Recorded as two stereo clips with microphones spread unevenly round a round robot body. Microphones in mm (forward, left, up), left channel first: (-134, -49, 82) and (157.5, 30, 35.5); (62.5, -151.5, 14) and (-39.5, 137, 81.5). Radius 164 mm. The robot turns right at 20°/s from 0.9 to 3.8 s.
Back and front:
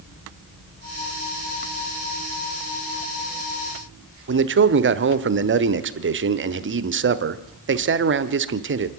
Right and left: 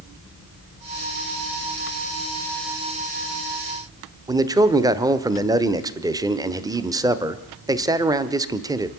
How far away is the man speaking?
About 1.3 m.